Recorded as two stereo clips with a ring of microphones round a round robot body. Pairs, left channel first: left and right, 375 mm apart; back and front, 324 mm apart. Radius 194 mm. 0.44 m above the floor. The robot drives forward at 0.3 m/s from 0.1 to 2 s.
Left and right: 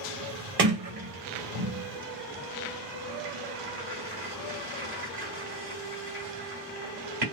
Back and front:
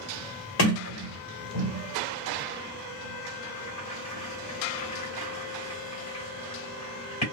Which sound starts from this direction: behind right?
A sliding door, at 0.6 s.